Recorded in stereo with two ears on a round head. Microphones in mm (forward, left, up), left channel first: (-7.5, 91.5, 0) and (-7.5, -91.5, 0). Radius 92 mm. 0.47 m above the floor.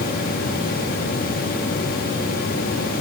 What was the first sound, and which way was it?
Only background noise.